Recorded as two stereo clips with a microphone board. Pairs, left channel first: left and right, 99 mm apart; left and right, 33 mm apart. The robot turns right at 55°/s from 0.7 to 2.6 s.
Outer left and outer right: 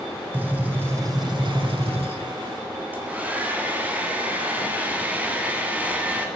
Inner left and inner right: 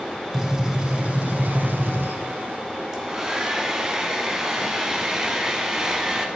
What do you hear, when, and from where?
0.3 s a gunshot: 165° right, 1.1 m; by 2.2 s 80° right, 1.1 m
2.9 s a hair dryer: 15° right (ahead or behind), 1.2 m